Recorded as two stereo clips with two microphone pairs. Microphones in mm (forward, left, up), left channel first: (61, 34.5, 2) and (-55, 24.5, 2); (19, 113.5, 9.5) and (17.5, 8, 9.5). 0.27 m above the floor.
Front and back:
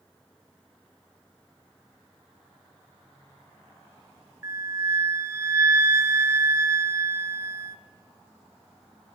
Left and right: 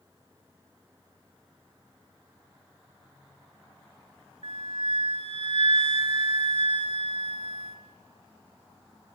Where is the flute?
110° right, 0.6 m.